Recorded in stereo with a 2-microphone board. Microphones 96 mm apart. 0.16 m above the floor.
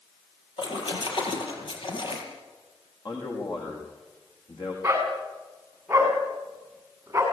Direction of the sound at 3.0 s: 45° left (ahead or behind).